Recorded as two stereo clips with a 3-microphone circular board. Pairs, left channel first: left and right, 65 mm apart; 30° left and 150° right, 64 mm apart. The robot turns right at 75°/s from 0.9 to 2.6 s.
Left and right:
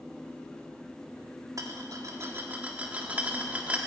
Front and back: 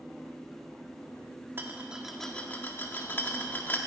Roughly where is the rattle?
Right.